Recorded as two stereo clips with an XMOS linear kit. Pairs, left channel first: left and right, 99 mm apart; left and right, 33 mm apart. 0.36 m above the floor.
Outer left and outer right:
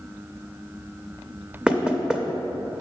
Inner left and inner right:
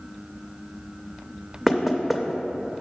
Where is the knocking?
10° right (ahead or behind), 0.6 m.